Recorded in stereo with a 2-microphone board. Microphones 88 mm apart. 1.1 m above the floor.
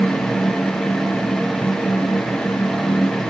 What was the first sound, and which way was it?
Only background noise.